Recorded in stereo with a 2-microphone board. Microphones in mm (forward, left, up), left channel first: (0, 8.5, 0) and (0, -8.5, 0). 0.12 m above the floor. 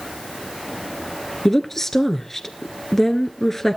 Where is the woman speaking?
20° left (ahead or behind), 1.5 m.